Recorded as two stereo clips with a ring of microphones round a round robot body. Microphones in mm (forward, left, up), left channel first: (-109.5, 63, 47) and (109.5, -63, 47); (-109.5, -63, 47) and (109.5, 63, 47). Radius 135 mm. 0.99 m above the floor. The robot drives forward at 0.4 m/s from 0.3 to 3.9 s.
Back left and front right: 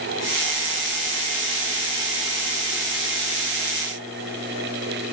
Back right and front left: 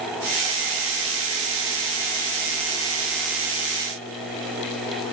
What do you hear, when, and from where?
Only background noise.